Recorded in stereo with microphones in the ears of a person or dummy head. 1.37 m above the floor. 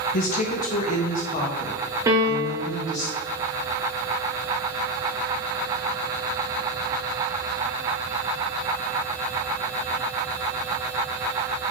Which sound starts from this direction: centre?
A piano, at 2.1 s.